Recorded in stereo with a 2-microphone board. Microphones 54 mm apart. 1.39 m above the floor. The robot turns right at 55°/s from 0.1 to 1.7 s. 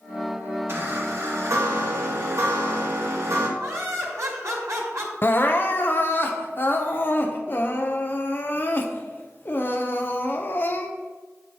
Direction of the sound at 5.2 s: 40° left (ahead or behind).